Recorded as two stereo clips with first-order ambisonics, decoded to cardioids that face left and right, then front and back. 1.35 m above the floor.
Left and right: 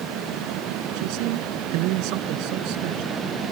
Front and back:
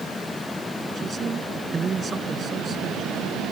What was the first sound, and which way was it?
A man speaking, 115° right.